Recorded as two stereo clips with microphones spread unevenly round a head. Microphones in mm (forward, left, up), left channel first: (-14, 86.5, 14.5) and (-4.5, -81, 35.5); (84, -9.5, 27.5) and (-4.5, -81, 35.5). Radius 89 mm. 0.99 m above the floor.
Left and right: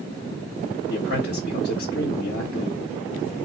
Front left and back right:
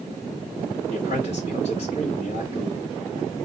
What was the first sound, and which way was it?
A man speaking, 70° left.